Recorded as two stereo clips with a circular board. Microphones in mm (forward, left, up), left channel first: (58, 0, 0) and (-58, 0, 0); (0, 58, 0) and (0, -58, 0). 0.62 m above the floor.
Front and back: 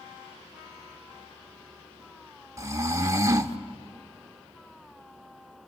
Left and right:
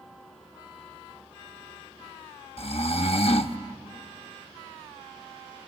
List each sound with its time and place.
2.6 s snoring: 120° left, 0.7 m